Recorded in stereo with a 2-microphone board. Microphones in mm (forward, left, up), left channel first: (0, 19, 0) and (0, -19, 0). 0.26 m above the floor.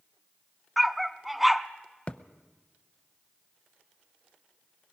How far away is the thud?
About 0.7 m.